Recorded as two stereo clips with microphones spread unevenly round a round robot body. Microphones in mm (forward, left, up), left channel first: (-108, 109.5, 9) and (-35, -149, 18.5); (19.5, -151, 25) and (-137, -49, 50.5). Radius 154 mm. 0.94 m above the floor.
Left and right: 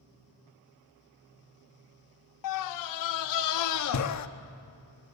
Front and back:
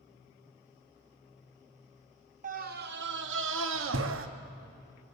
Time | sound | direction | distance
2.4 | a scream | 85° left | 1.1 m